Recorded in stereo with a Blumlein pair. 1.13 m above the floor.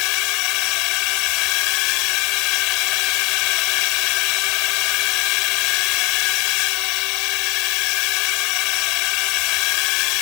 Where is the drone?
40° left.